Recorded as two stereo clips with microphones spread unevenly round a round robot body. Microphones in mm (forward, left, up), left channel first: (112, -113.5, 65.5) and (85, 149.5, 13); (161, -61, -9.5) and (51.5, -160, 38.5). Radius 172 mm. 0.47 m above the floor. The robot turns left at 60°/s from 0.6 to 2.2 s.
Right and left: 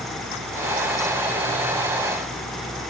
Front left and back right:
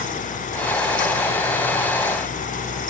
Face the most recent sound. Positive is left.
No sound to turn to.